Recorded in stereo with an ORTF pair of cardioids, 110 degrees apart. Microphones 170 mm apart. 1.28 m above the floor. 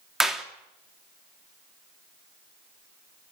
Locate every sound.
0.2 s a clap: 5° right, 2.5 m